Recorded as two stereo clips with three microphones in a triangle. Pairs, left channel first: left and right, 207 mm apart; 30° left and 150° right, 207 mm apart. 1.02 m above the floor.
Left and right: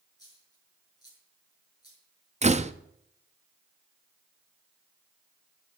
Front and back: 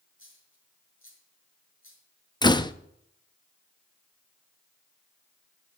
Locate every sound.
0.2 s a dropped coin: 20° left, 6 m
2.4 s a door slam: 40° right, 0.6 m